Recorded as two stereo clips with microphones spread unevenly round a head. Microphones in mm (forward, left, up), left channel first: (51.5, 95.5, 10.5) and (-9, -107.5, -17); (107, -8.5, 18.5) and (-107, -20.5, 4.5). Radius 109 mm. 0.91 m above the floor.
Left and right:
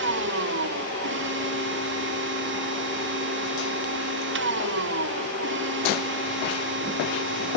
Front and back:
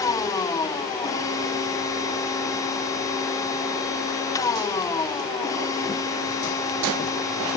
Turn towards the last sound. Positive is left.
turn(degrees=-70)